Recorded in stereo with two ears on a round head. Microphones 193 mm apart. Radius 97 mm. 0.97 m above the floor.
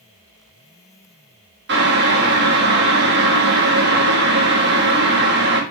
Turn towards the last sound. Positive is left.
turn(degrees=-55)  # may be behind; listen again after turning